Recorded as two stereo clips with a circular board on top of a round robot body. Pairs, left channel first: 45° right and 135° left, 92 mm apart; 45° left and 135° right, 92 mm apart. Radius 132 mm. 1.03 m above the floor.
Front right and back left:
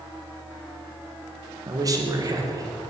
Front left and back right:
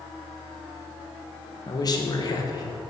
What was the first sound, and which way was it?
A man speaking, 90° left.